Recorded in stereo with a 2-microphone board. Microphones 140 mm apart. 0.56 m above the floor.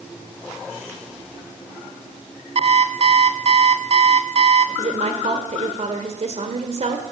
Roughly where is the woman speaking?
Right.